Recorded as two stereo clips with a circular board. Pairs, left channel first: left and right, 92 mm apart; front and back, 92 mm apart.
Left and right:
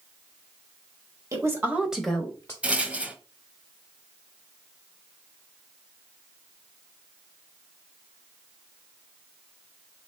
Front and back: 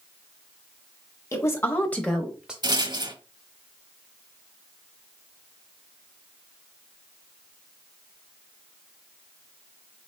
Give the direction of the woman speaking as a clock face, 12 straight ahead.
2 o'clock.